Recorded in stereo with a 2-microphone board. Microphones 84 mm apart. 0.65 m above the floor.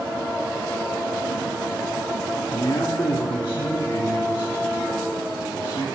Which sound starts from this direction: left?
A man speaking, at 2.5 s.